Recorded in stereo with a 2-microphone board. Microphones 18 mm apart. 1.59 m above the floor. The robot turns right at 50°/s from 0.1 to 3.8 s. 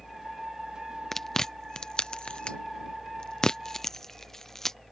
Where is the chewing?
20° left (ahead or behind); by 4.8 s 25° left (ahead or behind).